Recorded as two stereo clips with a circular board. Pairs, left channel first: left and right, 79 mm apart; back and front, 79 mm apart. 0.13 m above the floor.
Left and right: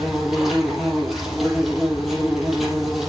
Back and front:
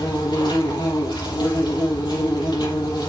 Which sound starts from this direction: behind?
An insect, at 0.0 s.